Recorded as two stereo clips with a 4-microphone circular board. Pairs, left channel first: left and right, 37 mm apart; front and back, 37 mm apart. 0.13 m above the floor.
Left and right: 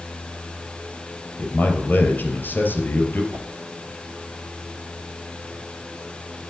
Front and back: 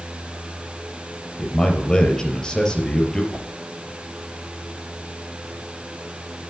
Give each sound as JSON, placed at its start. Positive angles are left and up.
{"t": 1.4, "sound": "a man speaking", "azimuth_deg": 70, "distance_m": 3.5}
{"t": 3.3, "sound": "a whoosh", "azimuth_deg": -125, "distance_m": 4.0}